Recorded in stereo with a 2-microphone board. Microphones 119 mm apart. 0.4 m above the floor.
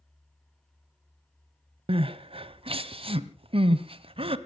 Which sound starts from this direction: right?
Crying, at 1.9 s.